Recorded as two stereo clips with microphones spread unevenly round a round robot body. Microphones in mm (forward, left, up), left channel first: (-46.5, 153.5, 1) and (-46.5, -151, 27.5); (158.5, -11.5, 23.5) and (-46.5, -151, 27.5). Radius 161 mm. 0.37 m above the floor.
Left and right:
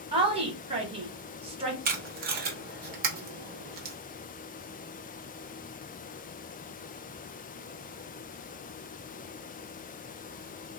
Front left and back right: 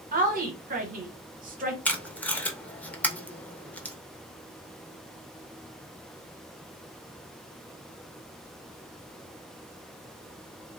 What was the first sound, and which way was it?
A woman speaking, 155° right.